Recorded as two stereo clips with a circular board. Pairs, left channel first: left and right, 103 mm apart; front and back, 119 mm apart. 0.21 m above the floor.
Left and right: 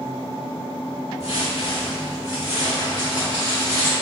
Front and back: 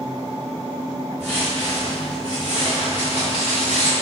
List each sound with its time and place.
1.2 s footsteps: 75° left, 1.2 m; by 3.9 s 25° left, 1.7 m